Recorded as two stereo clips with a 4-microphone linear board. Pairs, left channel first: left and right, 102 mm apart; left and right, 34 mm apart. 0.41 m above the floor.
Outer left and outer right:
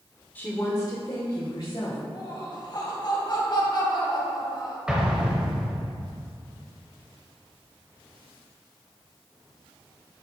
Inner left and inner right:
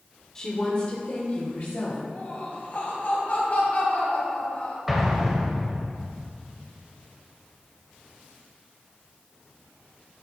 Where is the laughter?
45° left (ahead or behind), 2.5 m.